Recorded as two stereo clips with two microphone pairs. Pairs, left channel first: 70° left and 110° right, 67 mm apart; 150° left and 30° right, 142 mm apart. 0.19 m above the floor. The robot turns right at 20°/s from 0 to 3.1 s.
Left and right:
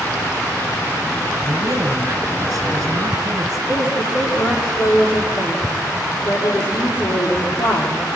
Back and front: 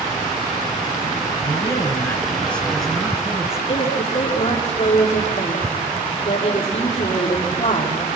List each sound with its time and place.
1.4 s a man speaking: 150° right, 2.5 m; by 3.6 s 115° right, 2.5 m
3.7 s a woman speaking: 100° left, 8 m